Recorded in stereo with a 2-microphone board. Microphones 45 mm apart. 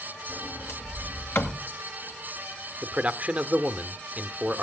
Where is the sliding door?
60° left (ahead or behind), 2 m.